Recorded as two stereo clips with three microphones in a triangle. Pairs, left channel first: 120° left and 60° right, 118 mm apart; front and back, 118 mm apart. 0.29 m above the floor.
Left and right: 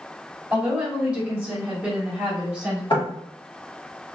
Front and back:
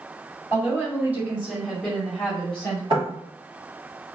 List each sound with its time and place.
0.5 s a woman speaking: 135° right, 1.7 m; by 2.8 s 5° left, 1.5 m
2.9 s knocking: 150° left, 1.4 m